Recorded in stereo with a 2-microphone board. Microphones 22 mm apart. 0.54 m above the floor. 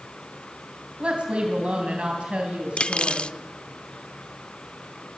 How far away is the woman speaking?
About 3.5 m.